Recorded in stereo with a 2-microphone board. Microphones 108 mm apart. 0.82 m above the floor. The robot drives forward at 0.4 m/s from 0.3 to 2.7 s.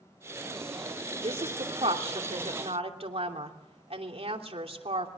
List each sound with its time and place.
1.2 s a woman speaking: 70° right (ahead or behind), 3 m